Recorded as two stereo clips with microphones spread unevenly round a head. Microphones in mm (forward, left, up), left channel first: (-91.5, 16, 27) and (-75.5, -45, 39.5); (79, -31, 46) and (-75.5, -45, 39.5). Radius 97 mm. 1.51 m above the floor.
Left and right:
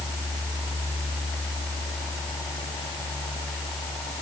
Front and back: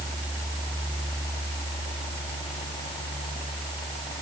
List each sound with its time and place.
Only background noise.